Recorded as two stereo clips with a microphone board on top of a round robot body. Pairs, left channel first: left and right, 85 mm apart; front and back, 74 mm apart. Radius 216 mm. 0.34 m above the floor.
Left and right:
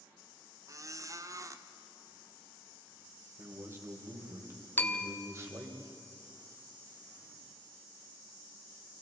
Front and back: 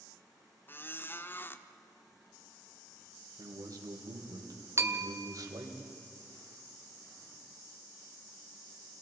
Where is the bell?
145° left, 1.6 m.